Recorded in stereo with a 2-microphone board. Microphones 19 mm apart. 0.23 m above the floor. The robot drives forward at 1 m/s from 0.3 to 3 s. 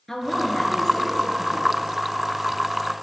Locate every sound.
0.1 s a woman speaking: 10° left (ahead or behind), 3 m